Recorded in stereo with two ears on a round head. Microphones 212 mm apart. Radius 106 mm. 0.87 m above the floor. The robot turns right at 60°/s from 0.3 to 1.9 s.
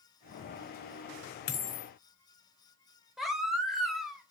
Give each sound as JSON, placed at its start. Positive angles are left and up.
{"t": 1.5, "sound": "a dropped coin", "side_deg": 45, "distance_m": 0.8}
{"t": 3.2, "sound": "a baby crying", "side_deg": 0, "distance_m": 0.8}